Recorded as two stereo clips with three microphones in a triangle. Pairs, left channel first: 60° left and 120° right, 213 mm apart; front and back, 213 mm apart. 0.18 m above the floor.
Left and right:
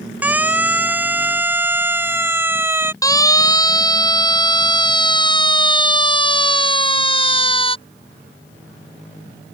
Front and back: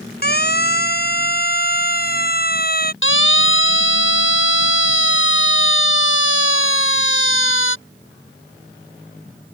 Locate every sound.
0.2 s a siren: 40° right
3.0 s a siren: 15° right; by 7.8 s 5° right